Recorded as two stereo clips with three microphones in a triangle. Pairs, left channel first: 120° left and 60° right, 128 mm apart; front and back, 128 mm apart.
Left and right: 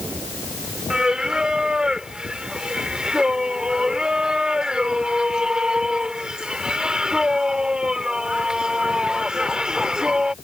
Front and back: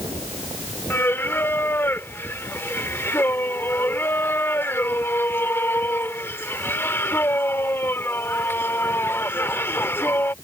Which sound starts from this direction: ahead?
Singing, at 0.9 s.